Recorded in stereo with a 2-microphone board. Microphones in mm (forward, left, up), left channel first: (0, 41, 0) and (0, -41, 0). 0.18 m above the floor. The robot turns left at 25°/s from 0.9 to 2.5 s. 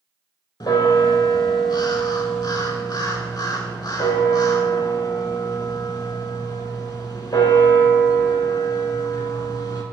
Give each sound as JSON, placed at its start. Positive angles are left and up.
{"t": 0.6, "sound": "a bell", "azimuth_deg": 110, "distance_m": 0.6}